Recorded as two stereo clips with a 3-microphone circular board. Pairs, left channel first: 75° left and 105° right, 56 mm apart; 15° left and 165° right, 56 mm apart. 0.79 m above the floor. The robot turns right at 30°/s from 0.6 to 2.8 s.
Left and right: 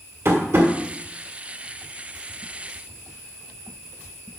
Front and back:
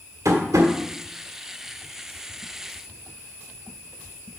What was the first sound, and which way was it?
Tapping, 140° right.